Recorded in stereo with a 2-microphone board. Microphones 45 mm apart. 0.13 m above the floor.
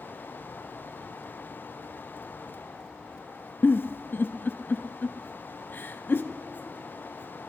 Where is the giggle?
50° left (ahead or behind), 0.7 m.